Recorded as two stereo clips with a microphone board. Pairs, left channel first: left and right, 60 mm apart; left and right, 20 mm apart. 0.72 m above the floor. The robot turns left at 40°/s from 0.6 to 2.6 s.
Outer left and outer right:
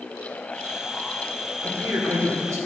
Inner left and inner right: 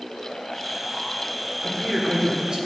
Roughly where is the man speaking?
Ahead right.